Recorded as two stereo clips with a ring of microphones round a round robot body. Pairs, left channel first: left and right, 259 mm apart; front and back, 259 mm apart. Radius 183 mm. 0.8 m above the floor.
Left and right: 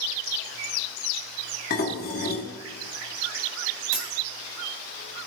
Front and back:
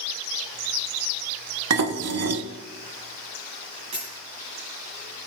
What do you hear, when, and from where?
1.7 s dishes clattering: 155° left, 1.0 m
3.9 s a dropped coin: 105° right, 2 m